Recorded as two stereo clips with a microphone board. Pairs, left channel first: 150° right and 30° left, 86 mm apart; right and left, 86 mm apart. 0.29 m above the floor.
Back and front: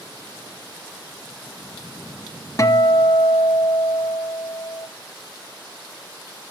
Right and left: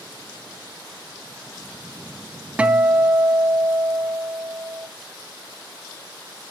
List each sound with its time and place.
2.6 s a guitar: 165° left, 0.7 m